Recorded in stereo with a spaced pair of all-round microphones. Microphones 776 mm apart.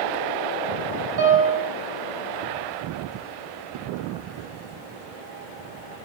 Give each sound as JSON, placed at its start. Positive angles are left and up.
{"t": 1.2, "sound": "a piano", "side_deg": -35, "distance_m": 0.6}